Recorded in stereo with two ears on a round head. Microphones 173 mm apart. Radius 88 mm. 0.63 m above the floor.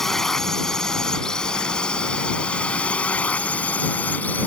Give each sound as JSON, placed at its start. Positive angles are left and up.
{"t": 0.0, "sound": "a drone", "side_deg": 0}